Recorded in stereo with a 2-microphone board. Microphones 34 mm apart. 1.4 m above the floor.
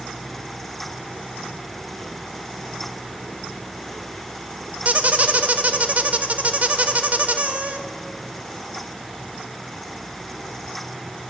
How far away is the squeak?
About 0.9 m.